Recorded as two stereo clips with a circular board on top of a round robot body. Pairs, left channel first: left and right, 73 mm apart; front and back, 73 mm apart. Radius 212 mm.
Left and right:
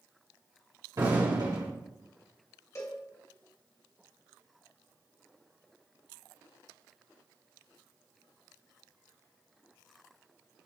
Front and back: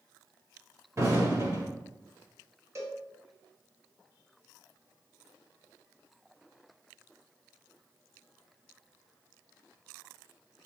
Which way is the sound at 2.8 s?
135° left.